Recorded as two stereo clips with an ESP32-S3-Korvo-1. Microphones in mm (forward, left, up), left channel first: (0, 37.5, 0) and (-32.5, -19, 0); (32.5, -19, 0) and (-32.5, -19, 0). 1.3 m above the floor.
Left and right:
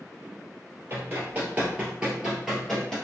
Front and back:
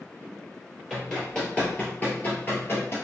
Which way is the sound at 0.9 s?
85° right.